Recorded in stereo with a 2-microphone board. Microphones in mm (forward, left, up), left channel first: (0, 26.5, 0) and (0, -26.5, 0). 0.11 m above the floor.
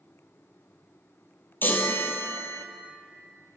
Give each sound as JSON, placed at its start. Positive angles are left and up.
{"t": 1.6, "sound": "a chime", "side_deg": 40, "distance_m": 1.1}